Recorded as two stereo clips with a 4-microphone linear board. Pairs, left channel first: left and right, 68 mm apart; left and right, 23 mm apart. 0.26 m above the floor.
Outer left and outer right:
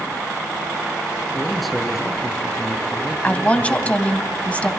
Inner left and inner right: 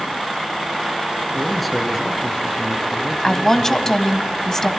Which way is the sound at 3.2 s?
20° left (ahead or behind).